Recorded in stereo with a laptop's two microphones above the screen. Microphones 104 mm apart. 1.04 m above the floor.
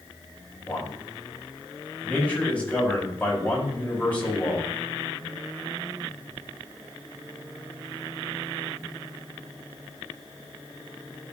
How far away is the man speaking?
About 6 m.